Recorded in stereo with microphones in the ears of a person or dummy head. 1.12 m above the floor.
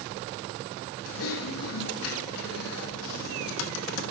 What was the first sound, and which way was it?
Typing on a keyboard, 75° left (ahead or behind).